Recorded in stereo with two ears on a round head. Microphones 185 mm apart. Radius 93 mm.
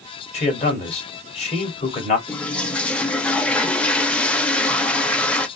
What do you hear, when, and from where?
0.3 s a man speaking: 30° left (ahead or behind), 2.5 m
2.3 s a toilet flushing: 5° left (ahead or behind), 0.6 m